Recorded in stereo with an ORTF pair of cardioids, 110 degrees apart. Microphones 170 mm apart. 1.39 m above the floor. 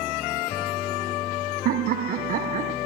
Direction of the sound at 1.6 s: 65° right.